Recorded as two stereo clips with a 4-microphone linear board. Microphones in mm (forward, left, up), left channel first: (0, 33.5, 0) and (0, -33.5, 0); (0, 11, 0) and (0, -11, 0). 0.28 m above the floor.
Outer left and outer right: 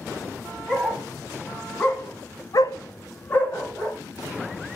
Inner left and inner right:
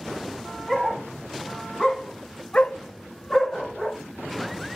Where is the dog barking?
5° left (ahead or behind), 1.7 m; by 4.0 s 25° left (ahead or behind), 1.6 m.